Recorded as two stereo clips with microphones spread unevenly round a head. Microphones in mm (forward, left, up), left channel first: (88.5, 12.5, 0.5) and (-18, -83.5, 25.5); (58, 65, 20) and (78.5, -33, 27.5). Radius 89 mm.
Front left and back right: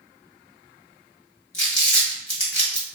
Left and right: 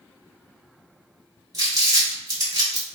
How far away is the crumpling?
About 1.5 m.